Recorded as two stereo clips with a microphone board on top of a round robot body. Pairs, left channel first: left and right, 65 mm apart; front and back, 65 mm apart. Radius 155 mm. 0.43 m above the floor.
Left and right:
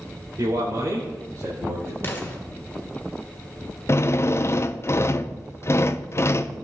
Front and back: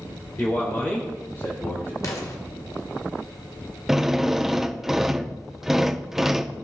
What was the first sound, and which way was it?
A man speaking, 60° right.